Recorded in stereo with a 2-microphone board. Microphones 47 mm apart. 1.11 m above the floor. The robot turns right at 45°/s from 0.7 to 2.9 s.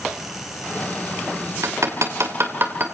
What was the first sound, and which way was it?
Hammering, 75° right (ahead or behind).